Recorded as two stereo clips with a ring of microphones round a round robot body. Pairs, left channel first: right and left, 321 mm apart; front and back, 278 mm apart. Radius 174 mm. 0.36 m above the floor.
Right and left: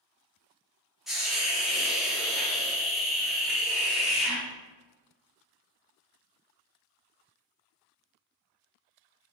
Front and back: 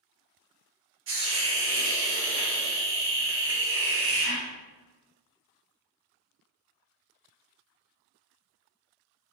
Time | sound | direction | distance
1.1 | a hiss | straight behind | 0.8 m